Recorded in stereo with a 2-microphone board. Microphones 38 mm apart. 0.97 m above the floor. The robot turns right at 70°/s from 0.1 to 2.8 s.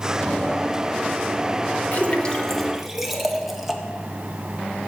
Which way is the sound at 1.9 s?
45° left (ahead or behind).